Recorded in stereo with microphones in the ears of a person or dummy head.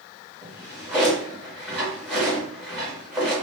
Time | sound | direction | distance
0.4 | a drawer | 5° left (ahead or behind) | 1.8 m